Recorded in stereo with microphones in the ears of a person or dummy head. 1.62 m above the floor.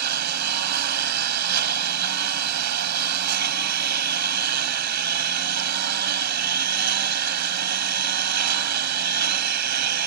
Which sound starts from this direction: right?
A lawn mower, at 0.0 s.